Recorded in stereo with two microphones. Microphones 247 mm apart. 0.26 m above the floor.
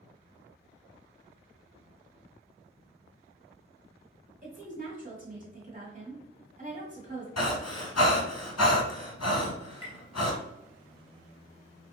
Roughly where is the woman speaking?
Right.